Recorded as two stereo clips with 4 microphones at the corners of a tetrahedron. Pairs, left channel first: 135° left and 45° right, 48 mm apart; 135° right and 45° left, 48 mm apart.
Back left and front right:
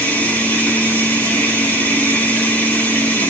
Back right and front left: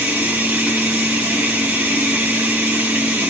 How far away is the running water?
About 1.1 m.